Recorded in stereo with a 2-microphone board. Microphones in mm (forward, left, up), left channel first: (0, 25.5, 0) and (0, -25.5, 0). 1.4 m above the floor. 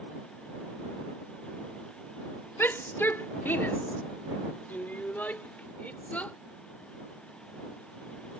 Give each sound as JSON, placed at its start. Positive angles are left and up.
{"t": 2.6, "sound": "a shout", "side_deg": 45}